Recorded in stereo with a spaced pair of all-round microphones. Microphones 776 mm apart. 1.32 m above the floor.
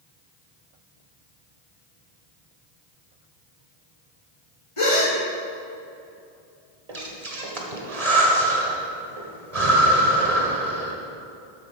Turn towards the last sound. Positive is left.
turn(degrees=-50)  # may be behind; listen again after turning